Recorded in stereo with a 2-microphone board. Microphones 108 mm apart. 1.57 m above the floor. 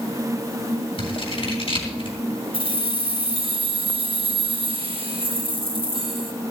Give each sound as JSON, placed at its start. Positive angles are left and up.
{"t": 1.0, "sound": "scissors", "side_deg": 60, "distance_m": 3.5}
{"t": 2.5, "sound": "keys jangling", "side_deg": -55, "distance_m": 1.9}